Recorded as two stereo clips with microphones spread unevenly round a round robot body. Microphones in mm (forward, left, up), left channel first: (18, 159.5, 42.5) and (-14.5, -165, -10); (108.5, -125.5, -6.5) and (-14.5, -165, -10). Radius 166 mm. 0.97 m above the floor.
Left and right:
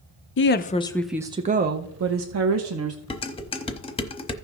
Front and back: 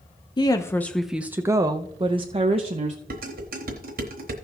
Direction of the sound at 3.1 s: 160° left.